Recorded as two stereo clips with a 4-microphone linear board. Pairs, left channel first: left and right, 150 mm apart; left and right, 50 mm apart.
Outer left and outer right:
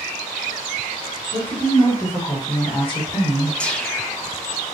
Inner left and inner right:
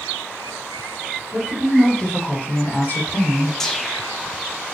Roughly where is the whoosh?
Centre.